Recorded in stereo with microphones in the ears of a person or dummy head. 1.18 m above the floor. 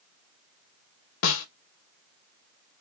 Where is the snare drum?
70° left (ahead or behind), 0.6 m.